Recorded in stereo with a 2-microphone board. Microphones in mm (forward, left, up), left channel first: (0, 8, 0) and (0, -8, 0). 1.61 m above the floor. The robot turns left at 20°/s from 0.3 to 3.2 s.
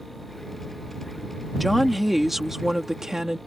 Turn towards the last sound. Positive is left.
turn(degrees=-30)